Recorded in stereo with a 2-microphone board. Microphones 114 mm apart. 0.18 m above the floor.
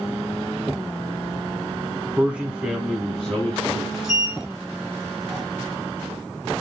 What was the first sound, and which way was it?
A man speaking, 15° right (ahead or behind).